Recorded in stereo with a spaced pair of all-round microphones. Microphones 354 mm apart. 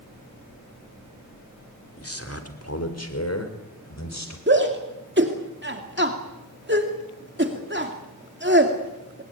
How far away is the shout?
About 2.5 m.